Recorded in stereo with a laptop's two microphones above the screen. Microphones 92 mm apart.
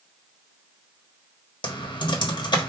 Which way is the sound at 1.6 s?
55° left (ahead or behind).